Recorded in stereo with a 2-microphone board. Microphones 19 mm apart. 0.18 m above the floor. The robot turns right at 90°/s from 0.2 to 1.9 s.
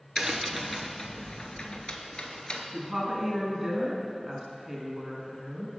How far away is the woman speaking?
About 1.4 m.